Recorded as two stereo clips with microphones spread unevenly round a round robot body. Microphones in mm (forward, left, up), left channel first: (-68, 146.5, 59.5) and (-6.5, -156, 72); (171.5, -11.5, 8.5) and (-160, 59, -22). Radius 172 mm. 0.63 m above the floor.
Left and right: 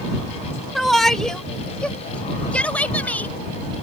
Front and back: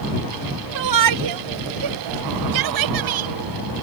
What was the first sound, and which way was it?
A shout, 170° right.